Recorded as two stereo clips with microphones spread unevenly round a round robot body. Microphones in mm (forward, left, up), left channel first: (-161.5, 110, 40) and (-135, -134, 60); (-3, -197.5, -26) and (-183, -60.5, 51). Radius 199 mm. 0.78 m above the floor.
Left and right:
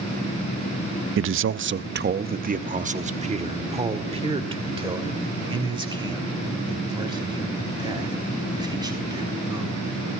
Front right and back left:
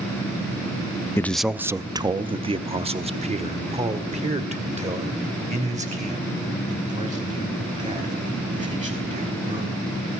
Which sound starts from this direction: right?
A man speaking, at 1.2 s.